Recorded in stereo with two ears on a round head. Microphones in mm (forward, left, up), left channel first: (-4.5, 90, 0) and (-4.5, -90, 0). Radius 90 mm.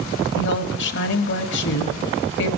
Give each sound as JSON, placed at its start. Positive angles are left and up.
{"t": 0.3, "sound": "a woman speaking", "side_deg": 60, "distance_m": 1.4}